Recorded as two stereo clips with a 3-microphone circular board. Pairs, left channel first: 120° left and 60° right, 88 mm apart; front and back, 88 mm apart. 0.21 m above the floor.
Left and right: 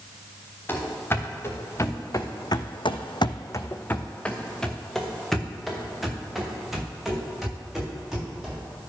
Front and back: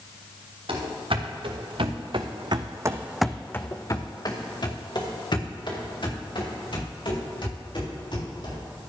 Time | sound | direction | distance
0.7 | running footsteps | 175° right | 2.5 m